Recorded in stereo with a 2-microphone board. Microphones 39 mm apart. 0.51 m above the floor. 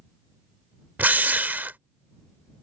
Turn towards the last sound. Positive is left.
turn(degrees=-50)  # may be behind; listen again after turning